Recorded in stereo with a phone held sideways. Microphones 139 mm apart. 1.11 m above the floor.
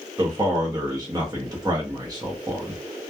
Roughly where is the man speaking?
Right.